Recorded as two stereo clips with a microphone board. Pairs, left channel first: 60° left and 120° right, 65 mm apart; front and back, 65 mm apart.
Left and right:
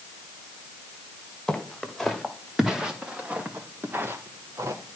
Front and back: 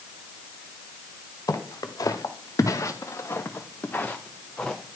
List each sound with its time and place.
1.5 s footsteps: 25° right, 2.5 m; by 5.0 s 90° right, 1.9 m